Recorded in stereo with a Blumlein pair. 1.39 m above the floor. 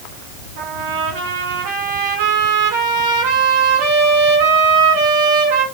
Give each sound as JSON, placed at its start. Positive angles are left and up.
{"t": 0.6, "sound": "a trumpet", "azimuth_deg": -50, "distance_m": 3.0}